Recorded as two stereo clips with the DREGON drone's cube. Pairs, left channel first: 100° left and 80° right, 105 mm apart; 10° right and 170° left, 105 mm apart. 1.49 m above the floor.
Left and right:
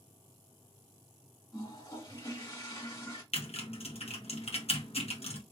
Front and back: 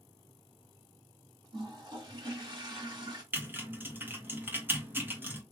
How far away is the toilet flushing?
About 2 m.